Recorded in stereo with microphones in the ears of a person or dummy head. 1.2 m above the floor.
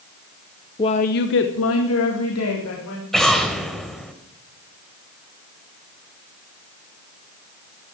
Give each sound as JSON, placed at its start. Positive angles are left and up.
{"t": 0.8, "sound": "a woman speaking", "side_deg": 20, "distance_m": 0.8}
{"t": 3.1, "sound": "an explosion", "side_deg": 5, "distance_m": 1.5}